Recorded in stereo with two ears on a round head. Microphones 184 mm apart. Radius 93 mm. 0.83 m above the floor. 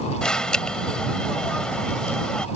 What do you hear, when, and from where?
0.2 s an alarm: 5° left (ahead or behind)